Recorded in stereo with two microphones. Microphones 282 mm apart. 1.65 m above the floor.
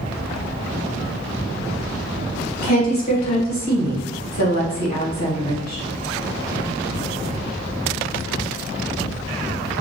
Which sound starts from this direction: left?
A woman speaking, at 2.6 s.